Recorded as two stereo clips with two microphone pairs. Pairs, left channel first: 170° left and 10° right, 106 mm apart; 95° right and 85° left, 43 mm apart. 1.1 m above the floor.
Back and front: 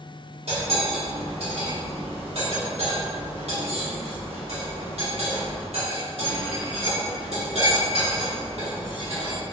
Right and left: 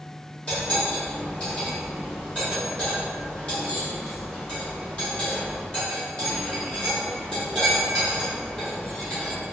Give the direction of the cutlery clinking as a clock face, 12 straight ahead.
1 o'clock.